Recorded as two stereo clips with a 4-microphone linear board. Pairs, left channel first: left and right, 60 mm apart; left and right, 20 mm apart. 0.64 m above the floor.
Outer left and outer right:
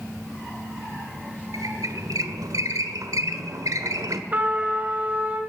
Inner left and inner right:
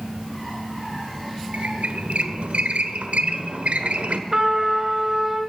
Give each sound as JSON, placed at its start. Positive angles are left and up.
{"t": 1.5, "sound": "a squeak", "side_deg": -75, "distance_m": 1.3}
{"t": 4.3, "sound": "a trumpet", "side_deg": -30, "distance_m": 2.5}